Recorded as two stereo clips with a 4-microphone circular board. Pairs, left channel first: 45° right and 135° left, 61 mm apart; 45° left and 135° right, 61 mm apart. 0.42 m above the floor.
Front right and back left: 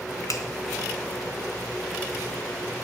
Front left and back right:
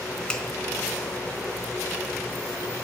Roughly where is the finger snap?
Ahead right.